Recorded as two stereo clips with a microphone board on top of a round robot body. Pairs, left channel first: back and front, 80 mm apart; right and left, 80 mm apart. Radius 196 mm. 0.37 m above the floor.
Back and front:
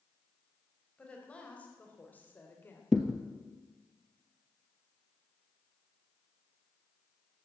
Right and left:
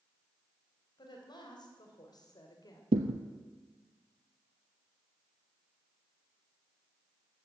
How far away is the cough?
No cough in this recording.